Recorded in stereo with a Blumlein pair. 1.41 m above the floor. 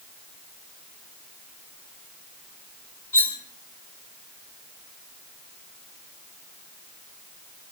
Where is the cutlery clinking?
65° left, 1.4 m.